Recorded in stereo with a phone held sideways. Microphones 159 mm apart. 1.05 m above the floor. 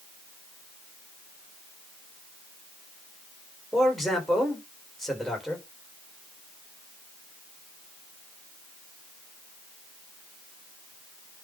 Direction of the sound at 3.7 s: Centre (ahead or behind).